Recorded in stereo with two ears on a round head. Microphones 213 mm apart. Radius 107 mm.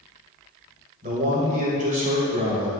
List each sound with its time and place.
1.0 s a man speaking: 35° right (ahead or behind), 1.8 m